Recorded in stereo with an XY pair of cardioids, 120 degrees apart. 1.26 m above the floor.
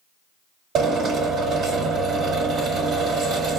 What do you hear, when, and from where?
0.8 s a drill: 60° right, 1.6 m